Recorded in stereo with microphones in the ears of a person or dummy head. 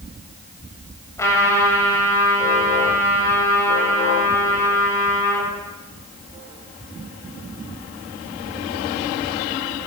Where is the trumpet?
15° left (ahead or behind), 7.5 m.